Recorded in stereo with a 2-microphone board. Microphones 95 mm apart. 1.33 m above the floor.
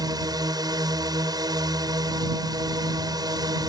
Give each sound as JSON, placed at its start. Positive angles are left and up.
{"t": 0.0, "sound": "a drone", "side_deg": -45}